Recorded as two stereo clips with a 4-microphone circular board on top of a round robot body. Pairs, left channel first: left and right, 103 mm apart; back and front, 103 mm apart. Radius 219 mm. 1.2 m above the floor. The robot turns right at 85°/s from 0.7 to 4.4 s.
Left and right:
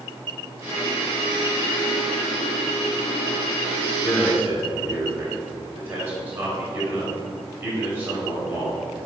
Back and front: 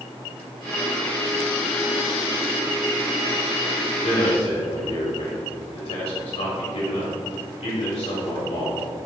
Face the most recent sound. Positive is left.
turn(degrees=-160)